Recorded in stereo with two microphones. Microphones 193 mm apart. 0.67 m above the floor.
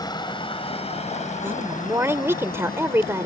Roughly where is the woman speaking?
Centre.